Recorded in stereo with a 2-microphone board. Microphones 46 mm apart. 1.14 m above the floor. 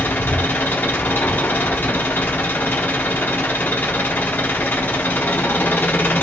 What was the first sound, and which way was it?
An engine running, 45° left (ahead or behind).